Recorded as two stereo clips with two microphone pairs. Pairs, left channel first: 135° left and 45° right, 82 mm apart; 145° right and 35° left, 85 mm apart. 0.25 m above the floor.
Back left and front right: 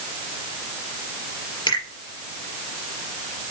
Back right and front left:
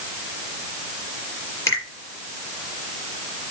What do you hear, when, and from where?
1.7 s a finger snap: 160° left, 4 m